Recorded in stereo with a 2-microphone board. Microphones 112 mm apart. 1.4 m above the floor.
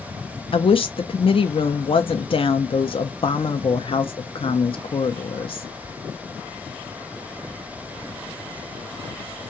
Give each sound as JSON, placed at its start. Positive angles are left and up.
{"t": 0.5, "sound": "a woman speaking", "side_deg": 55, "distance_m": 0.5}